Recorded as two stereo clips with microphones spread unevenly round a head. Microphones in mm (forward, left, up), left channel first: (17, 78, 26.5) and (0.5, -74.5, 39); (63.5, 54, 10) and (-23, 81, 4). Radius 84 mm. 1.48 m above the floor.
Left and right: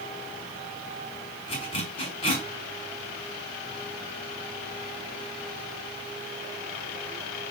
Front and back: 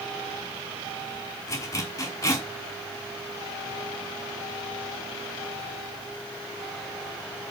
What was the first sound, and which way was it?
A zipper, 30° left.